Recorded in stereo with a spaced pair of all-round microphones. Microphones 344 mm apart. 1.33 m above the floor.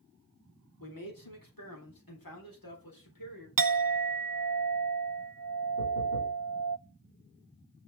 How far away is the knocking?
About 3 m.